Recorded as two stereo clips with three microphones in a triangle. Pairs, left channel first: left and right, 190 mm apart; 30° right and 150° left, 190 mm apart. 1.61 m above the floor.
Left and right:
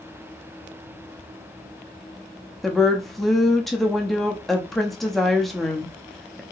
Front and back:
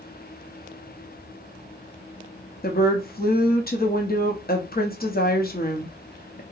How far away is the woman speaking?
About 0.7 m.